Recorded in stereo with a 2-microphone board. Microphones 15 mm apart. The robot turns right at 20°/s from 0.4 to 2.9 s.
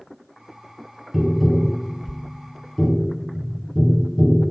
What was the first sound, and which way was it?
Tapping, centre (ahead or behind).